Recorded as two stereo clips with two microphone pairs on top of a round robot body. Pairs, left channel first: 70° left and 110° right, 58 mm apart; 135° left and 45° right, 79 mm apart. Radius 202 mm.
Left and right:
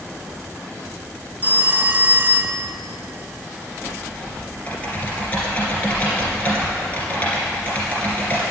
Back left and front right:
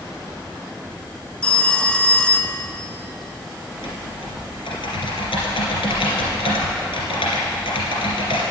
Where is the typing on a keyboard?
130° left, 2.5 m.